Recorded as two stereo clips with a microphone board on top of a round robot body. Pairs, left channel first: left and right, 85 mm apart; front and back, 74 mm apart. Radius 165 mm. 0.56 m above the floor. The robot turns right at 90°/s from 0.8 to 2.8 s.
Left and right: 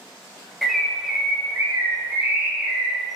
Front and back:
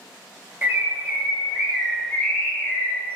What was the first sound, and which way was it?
A bird, straight behind.